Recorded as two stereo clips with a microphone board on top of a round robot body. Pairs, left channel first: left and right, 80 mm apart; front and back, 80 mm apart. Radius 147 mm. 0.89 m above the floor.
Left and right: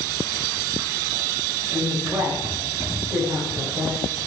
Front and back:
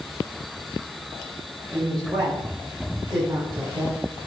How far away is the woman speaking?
About 7 m.